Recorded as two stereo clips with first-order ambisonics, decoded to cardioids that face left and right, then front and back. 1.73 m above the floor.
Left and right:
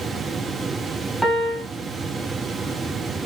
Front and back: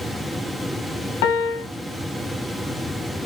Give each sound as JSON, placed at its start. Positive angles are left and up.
{"t": 1.2, "sound": "a piano", "azimuth_deg": 0, "distance_m": 0.6}